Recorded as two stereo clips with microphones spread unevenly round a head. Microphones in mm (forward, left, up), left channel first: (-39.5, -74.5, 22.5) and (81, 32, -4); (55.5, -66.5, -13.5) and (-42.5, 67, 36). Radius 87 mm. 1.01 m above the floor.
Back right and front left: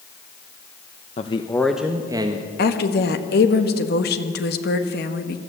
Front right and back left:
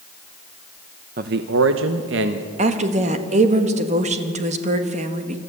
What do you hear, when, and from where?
1.2 s a man speaking: 170° left, 0.8 m; by 2.5 s 100° left, 1.4 m
2.6 s a woman speaking: 175° right, 1.5 m